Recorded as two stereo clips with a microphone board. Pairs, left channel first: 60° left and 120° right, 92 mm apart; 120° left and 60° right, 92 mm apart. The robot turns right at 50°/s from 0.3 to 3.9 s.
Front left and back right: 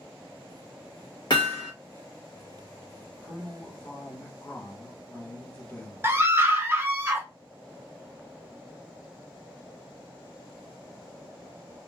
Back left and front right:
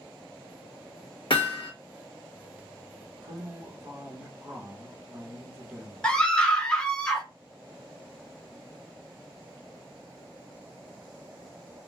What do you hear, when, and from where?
1.3 s hammering: 95° left, 1.0 m; by 1.7 s 115° left, 1.0 m
3.2 s a man speaking: 40° right, 1.2 m; by 6.1 s 5° right, 1.2 m
6.0 s a scream: 165° right, 0.6 m